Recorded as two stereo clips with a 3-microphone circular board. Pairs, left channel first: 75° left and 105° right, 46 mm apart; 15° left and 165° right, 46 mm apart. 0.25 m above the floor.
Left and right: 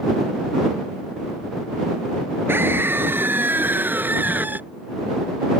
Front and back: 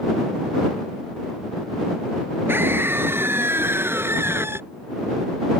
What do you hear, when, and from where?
2.5 s a scream: 135° right; by 4.6 s 150° right